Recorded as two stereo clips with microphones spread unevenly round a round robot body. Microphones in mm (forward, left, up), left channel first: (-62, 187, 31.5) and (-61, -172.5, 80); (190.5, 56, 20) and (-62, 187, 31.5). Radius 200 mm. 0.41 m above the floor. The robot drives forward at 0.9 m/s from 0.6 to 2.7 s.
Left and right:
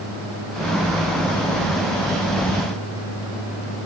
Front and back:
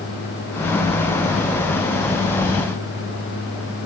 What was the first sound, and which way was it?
Only background noise.